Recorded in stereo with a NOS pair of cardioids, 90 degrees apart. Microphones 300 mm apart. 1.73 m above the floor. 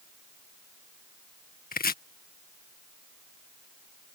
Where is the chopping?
30° left.